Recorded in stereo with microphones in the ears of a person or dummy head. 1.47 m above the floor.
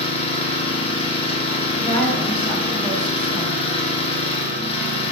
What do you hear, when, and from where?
0.0 s an engine running: 30° left (ahead or behind), 1.1 m
1.8 s a woman speaking: 15° left (ahead or behind), 2 m